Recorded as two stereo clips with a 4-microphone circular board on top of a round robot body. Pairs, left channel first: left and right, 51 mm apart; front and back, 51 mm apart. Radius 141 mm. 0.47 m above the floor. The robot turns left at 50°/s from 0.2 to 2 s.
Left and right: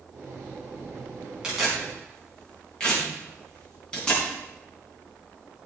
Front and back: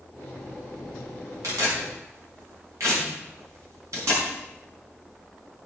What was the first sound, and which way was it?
Tearing paper, 170° right.